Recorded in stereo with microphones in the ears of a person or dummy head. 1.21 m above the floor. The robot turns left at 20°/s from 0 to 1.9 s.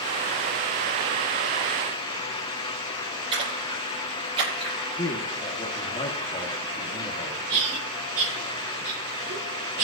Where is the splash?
35° right (ahead or behind), 9.5 m.